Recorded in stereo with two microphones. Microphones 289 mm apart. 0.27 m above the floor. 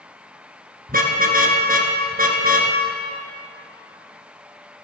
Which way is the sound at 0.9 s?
30° right (ahead or behind).